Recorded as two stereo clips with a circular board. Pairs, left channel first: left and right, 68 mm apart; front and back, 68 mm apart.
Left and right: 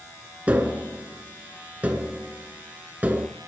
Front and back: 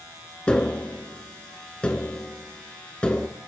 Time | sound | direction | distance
0.5 | tapping | 55° right | 0.9 m